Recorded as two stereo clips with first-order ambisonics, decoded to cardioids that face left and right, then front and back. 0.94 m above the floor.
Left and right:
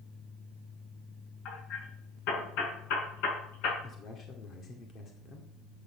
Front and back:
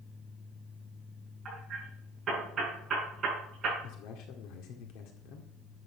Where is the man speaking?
30° left, 2.0 m.